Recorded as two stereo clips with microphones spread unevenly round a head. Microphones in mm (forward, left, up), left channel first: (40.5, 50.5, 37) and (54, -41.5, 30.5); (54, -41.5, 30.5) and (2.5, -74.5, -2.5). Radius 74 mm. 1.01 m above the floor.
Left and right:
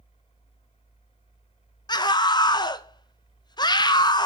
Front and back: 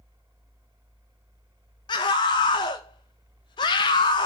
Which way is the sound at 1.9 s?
65° left.